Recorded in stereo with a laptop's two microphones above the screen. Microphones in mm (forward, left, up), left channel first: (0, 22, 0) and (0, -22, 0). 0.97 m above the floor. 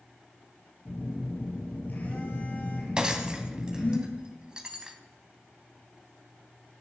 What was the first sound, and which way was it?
A phone buzzing, 45° left (ahead or behind).